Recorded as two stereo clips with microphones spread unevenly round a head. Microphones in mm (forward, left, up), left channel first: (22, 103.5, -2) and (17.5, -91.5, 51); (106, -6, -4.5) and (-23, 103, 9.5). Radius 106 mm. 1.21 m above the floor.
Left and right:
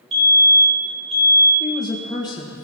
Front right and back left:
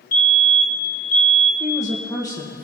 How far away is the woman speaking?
About 1.4 m.